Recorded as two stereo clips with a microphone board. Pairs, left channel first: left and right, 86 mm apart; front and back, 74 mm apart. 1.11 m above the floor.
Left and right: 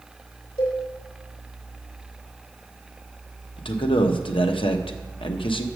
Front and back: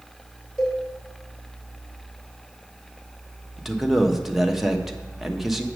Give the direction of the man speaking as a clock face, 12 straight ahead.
9 o'clock.